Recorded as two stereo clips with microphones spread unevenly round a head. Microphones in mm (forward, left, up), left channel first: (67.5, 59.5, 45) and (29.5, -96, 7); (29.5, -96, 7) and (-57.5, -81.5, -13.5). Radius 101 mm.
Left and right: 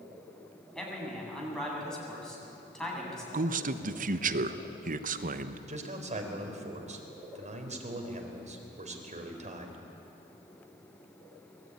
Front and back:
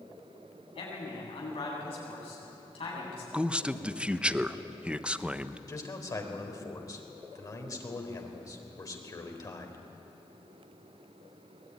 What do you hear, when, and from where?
0.8 s a man speaking: 10° right, 8 m
3.3 s a man speaking: 120° right, 1.1 m
5.7 s a man speaking: 55° right, 4 m